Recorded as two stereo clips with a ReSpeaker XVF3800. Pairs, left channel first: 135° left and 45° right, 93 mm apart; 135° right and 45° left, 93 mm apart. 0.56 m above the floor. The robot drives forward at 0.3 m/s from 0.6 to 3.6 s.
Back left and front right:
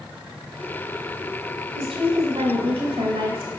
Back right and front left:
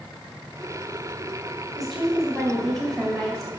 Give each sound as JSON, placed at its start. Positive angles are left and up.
{"t": 1.8, "sound": "a woman speaking", "azimuth_deg": -45, "distance_m": 4.5}